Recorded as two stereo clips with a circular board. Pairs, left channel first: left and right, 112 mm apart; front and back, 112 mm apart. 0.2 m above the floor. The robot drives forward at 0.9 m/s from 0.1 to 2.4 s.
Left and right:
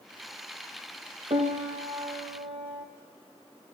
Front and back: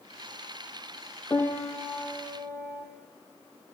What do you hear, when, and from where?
1.3 s a piano: 70° right, 1.4 m; by 2.9 s 110° right, 1.4 m